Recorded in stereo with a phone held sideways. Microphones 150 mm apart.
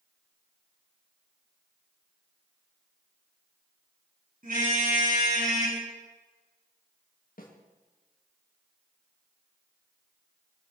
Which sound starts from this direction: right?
A car horn, at 4.4 s.